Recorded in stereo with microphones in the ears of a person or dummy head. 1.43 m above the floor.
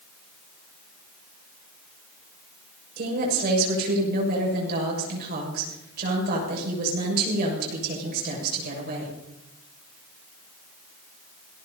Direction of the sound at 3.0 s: 55° right (ahead or behind).